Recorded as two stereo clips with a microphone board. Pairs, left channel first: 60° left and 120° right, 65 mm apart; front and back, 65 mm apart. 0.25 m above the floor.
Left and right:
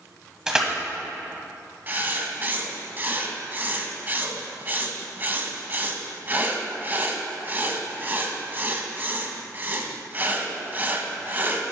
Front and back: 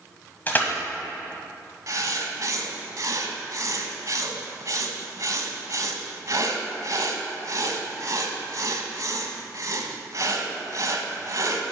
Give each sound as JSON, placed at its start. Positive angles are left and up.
{"t": 0.5, "sound": "crushing", "azimuth_deg": -45, "distance_m": 1.2}
{"t": 1.9, "sound": "writing", "azimuth_deg": -175, "distance_m": 0.9}